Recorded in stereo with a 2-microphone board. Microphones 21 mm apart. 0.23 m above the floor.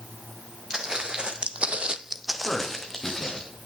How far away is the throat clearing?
I don't hear throat clearing.